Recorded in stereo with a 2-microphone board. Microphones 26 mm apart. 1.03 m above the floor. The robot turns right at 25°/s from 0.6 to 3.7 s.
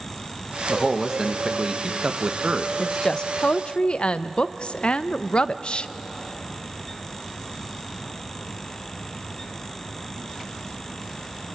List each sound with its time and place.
0.7 s a man speaking: 170° right, 1.1 m; by 2.7 s 120° right, 1.1 m
2.8 s a woman speaking: 25° left (ahead or behind), 0.5 m; by 5.9 s 45° left (ahead or behind), 0.5 m